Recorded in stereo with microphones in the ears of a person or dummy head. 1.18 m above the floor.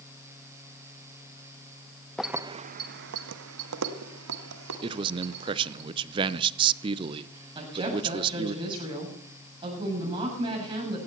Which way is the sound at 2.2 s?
5° left (ahead or behind).